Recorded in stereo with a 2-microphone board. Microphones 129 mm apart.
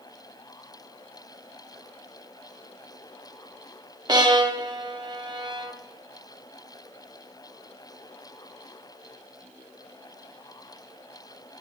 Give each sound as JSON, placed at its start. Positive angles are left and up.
{"t": 4.1, "sound": "a violin", "side_deg": -35, "distance_m": 0.5}